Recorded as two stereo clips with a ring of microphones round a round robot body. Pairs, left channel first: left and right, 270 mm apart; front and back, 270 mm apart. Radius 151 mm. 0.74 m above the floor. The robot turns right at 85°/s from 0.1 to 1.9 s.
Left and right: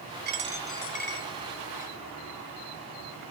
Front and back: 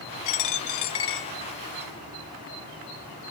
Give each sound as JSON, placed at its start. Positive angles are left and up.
{"t": 0.2, "sound": "a dropped coin", "azimuth_deg": -35, "distance_m": 1.0}